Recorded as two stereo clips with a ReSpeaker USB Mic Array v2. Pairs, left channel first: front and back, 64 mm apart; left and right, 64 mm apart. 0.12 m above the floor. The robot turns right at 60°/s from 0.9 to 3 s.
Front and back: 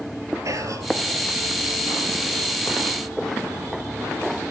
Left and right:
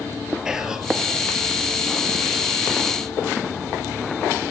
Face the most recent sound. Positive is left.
turn(degrees=-45)